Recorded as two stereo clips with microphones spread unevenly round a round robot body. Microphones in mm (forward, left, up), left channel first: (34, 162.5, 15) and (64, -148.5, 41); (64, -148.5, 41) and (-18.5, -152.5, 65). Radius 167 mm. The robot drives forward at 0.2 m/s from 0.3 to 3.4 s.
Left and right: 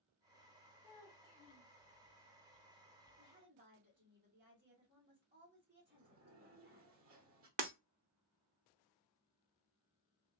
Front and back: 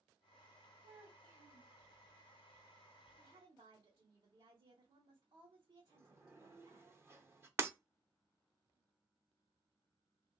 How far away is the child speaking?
About 0.9 m.